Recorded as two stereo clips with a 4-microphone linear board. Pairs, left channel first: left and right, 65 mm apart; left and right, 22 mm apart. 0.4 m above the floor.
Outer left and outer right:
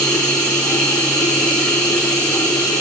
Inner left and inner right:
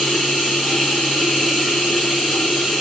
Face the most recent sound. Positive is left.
turn(degrees=15)  # may be behind; listen again after turning